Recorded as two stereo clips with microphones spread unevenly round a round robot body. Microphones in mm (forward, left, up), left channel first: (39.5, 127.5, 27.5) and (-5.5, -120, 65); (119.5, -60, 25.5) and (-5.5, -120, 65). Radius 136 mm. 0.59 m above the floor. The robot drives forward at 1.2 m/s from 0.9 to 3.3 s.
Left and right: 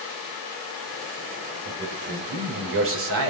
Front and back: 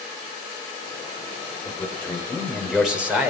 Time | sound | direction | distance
1.6 | a man speaking | 40° right | 4 m